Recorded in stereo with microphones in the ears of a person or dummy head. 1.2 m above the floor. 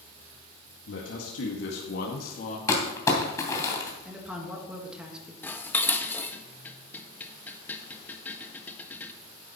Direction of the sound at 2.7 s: 20° left (ahead or behind).